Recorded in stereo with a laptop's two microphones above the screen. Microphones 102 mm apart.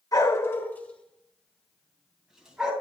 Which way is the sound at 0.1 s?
40° left (ahead or behind).